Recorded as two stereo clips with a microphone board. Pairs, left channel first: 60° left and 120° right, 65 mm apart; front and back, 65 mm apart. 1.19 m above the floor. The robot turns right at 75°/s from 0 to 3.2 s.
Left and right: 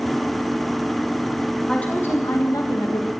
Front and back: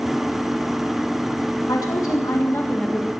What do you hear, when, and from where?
1.7 s a woman speaking: 15° right, 1.7 m; by 3.1 s 90° left, 1.7 m